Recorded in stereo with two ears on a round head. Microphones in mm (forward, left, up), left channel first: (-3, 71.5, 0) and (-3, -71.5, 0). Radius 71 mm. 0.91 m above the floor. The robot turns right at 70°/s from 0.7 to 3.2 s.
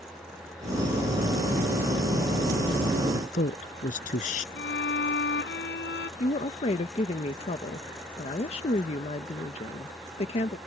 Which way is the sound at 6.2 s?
40° left (ahead or behind).